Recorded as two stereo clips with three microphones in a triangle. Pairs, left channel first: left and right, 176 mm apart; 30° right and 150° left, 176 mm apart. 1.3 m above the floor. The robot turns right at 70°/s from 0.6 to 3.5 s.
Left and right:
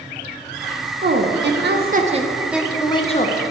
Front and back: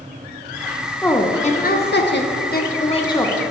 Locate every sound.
1.0 s a woman speaking: 115° right, 0.7 m; by 3.4 s 55° left, 0.7 m